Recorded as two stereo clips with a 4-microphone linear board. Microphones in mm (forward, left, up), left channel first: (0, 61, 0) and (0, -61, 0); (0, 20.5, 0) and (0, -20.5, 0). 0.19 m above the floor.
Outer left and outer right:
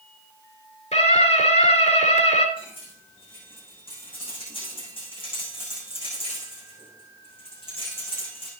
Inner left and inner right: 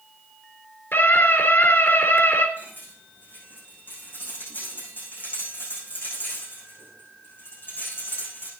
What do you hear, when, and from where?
0.9 s a scream: 65° left (ahead or behind), 2.5 m
2.6 s cutlery clinking: 45° left (ahead or behind), 7.5 m